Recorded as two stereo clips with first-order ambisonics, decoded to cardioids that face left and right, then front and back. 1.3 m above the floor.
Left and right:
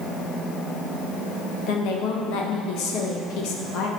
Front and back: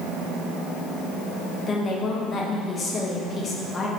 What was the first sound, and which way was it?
A woman speaking, 65° left.